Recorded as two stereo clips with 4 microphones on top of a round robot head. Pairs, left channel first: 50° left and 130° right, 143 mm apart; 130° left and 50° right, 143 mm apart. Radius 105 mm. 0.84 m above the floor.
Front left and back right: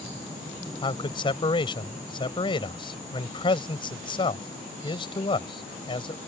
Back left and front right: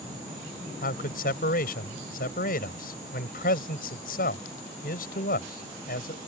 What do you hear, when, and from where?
0.8 s a man speaking: 105° left